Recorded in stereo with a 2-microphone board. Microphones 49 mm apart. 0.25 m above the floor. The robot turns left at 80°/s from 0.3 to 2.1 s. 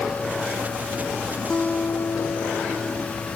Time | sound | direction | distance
1.5 | a guitar | 160° left | ?